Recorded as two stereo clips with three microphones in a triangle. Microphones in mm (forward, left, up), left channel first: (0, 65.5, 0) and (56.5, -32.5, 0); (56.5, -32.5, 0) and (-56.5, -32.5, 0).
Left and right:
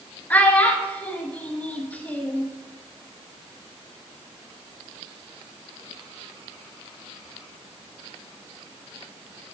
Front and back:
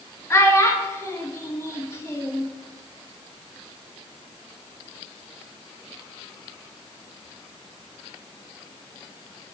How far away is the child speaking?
About 1.1 m.